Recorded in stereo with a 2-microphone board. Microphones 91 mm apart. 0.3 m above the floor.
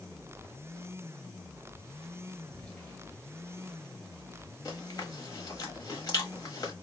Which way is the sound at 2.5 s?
20° left (ahead or behind).